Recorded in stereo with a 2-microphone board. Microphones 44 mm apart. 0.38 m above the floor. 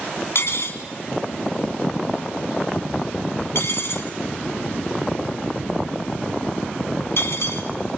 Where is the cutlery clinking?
70° left (ahead or behind), 2 m.